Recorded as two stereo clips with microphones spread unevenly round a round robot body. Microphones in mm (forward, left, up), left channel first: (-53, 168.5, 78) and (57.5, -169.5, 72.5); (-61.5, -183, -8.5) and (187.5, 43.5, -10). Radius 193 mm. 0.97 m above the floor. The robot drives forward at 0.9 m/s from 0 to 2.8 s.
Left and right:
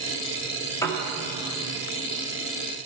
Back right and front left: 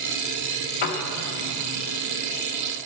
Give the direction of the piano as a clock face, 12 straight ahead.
6 o'clock.